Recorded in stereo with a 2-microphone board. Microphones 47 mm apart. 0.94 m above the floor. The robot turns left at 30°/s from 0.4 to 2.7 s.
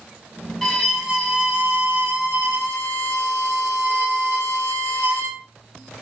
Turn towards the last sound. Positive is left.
turn(degrees=-65)